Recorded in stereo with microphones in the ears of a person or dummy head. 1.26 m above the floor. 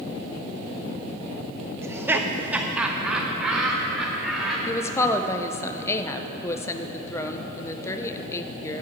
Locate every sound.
1.8 s laughter: 15° right (ahead or behind), 0.6 m; by 4.6 s centre (ahead or behind), 2 m
4.7 s a woman speaking: 15° left (ahead or behind), 0.6 m